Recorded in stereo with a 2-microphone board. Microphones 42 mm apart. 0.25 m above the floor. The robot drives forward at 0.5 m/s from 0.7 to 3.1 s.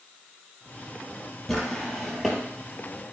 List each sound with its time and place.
1.5 s a drawer: 5° left (ahead or behind), 2.5 m